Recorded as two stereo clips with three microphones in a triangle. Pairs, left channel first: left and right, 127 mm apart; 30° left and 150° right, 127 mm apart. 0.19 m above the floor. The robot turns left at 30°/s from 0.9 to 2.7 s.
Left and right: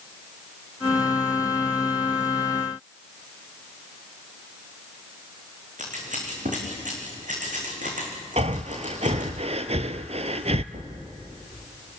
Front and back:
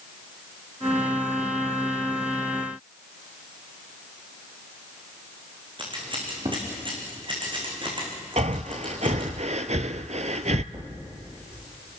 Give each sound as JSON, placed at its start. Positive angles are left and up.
{"t": 5.8, "sound": "scissors", "azimuth_deg": -100, "distance_m": 5.0}
{"t": 8.4, "sound": "breathing", "azimuth_deg": -125, "distance_m": 0.9}
{"t": 10.7, "sound": "a thud", "azimuth_deg": -100, "distance_m": 9.0}